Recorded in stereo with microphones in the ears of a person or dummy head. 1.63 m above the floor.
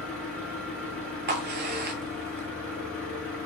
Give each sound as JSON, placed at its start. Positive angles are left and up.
{"t": 0.0, "sound": "an engine running", "side_deg": 5, "distance_m": 1.5}
{"t": 1.3, "sound": "a crack", "side_deg": -50, "distance_m": 0.7}